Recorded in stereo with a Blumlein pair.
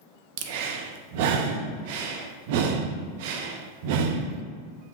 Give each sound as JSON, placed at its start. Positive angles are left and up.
{"t": 0.4, "sound": "breathing", "azimuth_deg": -50, "distance_m": 0.7}